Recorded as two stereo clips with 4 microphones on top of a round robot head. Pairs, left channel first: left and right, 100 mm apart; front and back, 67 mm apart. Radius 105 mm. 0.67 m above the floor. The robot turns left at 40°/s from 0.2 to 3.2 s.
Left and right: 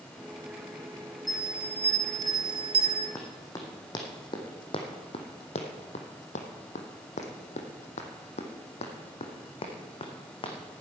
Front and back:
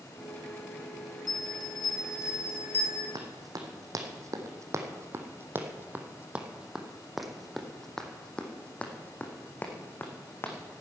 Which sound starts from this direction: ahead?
A bell, at 1.3 s.